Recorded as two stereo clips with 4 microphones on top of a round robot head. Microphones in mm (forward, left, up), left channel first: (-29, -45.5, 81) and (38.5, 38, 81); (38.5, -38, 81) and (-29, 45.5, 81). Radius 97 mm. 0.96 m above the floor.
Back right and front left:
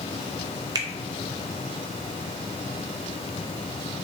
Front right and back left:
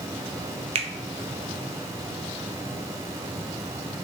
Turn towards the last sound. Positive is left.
turn(degrees=105)